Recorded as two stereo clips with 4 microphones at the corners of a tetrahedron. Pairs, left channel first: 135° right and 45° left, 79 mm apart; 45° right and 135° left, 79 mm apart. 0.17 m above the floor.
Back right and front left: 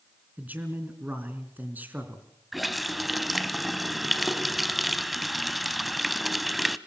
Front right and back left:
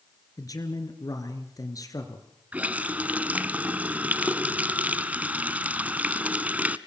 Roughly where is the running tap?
Behind left.